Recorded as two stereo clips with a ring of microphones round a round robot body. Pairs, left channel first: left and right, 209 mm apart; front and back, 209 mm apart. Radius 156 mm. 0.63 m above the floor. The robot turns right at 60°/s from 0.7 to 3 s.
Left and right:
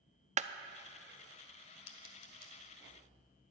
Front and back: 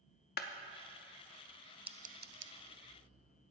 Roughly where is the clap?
Ahead right.